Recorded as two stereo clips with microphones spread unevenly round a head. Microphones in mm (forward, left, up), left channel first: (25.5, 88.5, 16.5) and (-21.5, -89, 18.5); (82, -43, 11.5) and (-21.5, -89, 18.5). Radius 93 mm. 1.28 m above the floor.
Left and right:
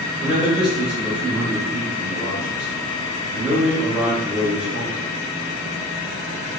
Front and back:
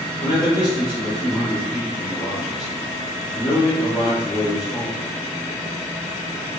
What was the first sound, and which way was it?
A man speaking, 25° right.